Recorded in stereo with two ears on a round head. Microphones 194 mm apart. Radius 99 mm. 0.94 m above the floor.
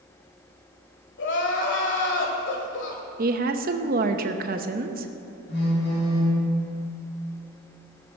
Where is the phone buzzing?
60° left (ahead or behind), 4.5 m.